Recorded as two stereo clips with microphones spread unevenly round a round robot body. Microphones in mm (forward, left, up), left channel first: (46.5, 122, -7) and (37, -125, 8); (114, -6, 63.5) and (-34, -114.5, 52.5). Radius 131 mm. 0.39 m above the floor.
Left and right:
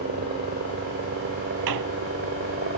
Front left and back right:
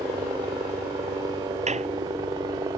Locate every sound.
0.0 s a helicopter: 90° right
1.7 s a squeak: 90° right